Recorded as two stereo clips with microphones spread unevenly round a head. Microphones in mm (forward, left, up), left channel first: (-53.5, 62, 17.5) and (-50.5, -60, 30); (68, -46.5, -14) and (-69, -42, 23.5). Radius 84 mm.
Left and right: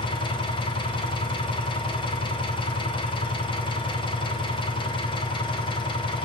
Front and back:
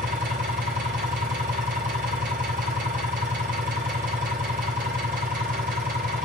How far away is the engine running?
About 4.5 m.